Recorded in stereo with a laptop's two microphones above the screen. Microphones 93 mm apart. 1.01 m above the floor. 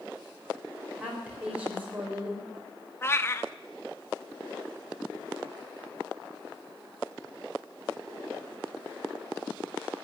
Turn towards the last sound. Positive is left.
turn(degrees=25)  # may be behind; listen again after turning